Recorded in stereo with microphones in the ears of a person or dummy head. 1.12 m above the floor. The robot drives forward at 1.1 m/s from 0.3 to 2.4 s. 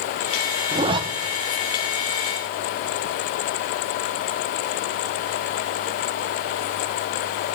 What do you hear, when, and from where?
0.7 s a zipper: 25° right (ahead or behind), 0.7 m; by 1.0 s 20° right (ahead or behind), 0.8 m